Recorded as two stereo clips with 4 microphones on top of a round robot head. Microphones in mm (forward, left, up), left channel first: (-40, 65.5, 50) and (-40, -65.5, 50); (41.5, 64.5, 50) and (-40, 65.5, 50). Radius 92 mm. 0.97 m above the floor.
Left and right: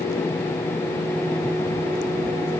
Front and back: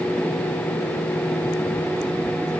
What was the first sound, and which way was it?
Only background noise.